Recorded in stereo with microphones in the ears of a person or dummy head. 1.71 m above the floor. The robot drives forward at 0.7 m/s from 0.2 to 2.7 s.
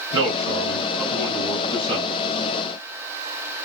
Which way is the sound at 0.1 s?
25° right (ahead or behind).